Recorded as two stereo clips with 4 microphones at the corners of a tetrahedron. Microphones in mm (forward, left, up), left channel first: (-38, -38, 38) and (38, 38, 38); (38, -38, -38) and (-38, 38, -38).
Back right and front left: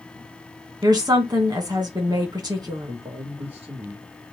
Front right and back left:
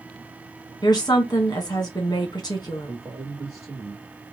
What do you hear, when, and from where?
0.8 s a woman speaking: straight ahead, 1.1 m
2.9 s a man speaking: 60° left, 1.1 m